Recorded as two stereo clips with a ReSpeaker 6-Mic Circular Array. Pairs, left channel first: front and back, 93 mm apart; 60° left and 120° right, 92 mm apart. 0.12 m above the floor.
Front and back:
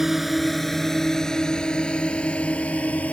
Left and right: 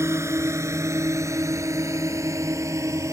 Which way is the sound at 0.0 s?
95° right.